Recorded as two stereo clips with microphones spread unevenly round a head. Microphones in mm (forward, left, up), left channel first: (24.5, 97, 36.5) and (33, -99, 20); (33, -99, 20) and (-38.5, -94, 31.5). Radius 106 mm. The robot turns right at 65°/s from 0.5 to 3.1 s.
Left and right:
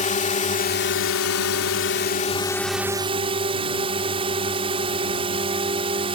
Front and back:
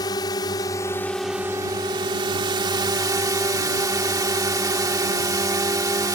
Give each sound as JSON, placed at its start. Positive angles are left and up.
{"t": 0.0, "sound": "a drone", "azimuth_deg": 40}